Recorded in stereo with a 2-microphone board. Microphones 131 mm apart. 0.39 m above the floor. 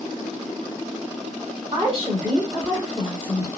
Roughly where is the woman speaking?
Right.